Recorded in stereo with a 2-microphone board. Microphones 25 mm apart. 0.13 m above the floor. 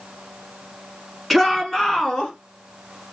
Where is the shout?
Centre (ahead or behind), 1.2 m; by 2.3 s 35° left (ahead or behind), 1.3 m.